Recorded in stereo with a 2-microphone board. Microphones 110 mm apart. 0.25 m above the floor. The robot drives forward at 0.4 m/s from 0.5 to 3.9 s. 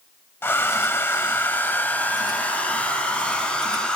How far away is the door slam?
No door slam in this recording.